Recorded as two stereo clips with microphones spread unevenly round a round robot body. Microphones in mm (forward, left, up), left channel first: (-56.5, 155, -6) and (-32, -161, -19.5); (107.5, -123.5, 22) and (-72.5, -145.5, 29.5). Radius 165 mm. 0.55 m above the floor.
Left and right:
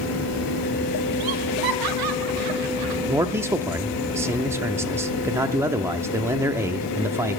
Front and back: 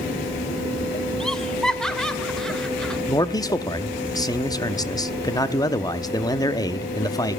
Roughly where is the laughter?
Right.